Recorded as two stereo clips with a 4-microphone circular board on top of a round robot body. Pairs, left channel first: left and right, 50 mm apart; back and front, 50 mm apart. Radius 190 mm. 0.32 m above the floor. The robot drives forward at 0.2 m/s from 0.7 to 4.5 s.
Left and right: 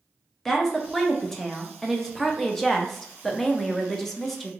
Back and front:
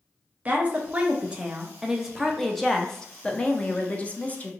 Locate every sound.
0.5 s a woman speaking: 10° left, 0.9 m; by 4.5 s 170° left, 0.9 m